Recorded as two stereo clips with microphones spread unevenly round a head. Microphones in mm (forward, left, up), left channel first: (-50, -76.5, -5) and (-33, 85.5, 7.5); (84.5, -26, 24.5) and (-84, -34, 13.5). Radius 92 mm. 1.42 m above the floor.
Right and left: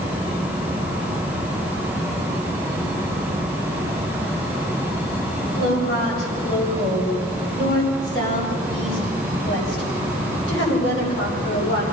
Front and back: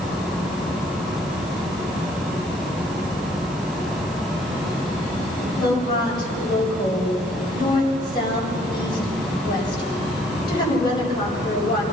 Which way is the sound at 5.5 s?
60° right.